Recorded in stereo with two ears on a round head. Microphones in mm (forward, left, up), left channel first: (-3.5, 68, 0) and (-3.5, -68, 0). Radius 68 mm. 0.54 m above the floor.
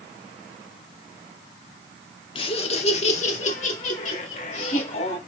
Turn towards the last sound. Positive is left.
turn(degrees=55)  # may be behind; listen again after turning